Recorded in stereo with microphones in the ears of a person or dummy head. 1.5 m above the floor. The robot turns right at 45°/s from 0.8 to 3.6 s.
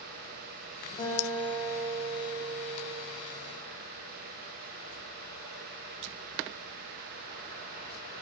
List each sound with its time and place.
1.0 s a guitar: 155° left, 0.7 m; by 3.0 s 110° right, 0.7 m